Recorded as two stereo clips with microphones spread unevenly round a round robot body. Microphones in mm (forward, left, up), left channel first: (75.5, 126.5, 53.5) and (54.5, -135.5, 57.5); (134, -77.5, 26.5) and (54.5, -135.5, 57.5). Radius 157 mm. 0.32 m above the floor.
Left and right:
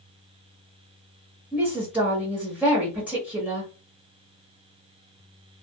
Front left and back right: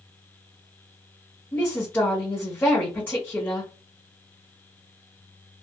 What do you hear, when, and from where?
1.5 s a woman speaking: 10° right, 1.3 m